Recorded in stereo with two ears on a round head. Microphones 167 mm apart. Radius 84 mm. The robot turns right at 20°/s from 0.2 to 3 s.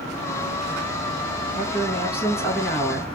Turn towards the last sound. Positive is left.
turn(degrees=5)  # may be behind; listen again after turning